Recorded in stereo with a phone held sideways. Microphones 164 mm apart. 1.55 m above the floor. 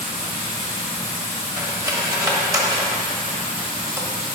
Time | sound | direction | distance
0.0 | running water | 30° left (ahead or behind) | 1.7 m
1.6 | cutlery clinking | 20° right (ahead or behind) | 1.2 m